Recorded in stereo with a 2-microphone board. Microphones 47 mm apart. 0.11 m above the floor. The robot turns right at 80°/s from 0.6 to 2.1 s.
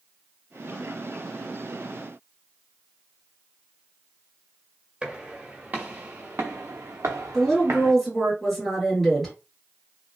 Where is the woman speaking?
5° left (ahead or behind), 2.0 m.